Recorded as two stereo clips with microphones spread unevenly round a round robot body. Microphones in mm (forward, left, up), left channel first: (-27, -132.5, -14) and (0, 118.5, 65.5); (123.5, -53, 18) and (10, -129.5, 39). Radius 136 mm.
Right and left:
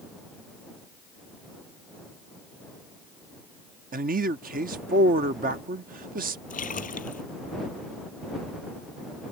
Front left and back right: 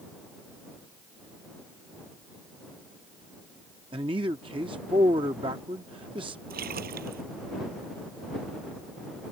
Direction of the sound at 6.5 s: 160° right.